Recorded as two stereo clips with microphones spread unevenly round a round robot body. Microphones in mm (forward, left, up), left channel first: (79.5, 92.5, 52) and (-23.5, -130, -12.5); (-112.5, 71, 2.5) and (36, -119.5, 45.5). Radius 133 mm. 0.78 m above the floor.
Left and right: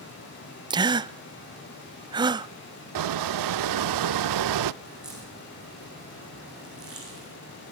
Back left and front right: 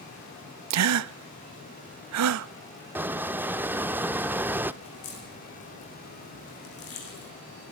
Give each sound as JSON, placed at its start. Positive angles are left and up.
{"t": 0.7, "sound": "a gasp", "azimuth_deg": -55, "distance_m": 0.7}
{"t": 3.0, "sound": "a squeak", "azimuth_deg": -125, "distance_m": 0.5}
{"t": 4.8, "sound": "a crack", "azimuth_deg": 155, "distance_m": 8.5}